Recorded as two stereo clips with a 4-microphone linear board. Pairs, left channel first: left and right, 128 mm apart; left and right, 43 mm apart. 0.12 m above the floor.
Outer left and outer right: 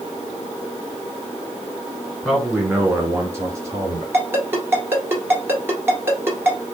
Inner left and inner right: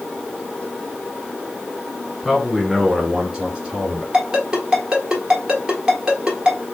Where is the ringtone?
15° right (ahead or behind), 1.4 m.